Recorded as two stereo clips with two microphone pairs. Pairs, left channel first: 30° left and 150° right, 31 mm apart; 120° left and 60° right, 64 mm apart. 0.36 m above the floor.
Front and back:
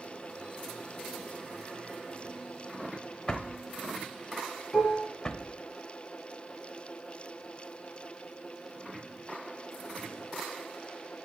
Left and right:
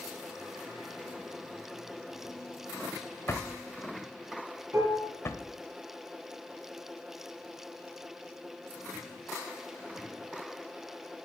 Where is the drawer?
90° left, 0.7 m.